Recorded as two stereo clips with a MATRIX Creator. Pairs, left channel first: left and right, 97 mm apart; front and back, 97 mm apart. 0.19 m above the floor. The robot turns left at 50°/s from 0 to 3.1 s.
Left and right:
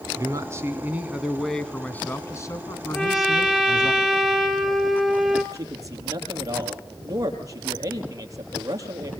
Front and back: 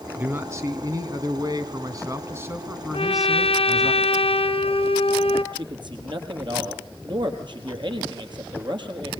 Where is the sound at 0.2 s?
115° right, 2 m; by 3.9 s 95° left, 2 m.